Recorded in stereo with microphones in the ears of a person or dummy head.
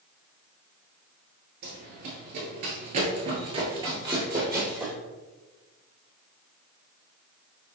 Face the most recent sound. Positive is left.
turn(degrees=-10)  # may be behind; listen again after turning